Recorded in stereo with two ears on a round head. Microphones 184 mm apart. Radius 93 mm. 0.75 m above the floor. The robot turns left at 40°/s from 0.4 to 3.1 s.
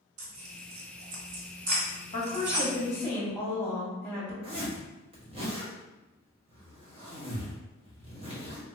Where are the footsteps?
I don't hear footsteps.